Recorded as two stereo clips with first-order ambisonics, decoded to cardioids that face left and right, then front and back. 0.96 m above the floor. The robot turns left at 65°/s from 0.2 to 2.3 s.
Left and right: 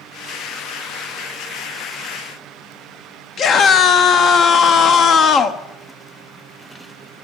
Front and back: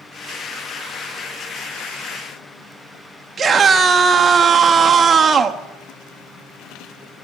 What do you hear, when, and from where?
3.4 s a scream: 120° left, 0.7 m